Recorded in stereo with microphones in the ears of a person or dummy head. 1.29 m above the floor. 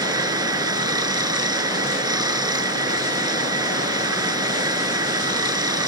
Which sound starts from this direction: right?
Running water, at 0.0 s.